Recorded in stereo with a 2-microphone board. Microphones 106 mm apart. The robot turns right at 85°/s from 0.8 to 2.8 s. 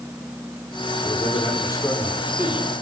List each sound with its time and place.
1.0 s a man speaking: 85° left, 5 m; by 2.7 s 135° right, 5 m